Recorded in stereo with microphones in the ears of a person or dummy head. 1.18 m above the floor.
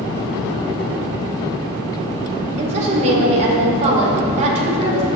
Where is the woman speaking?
40° right (ahead or behind), 4.5 m.